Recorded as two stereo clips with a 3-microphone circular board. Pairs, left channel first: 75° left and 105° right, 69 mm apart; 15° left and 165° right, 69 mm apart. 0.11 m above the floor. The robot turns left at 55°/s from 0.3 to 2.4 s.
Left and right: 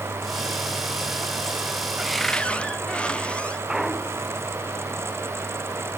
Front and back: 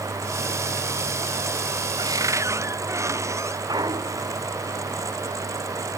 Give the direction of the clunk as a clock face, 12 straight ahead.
6 o'clock.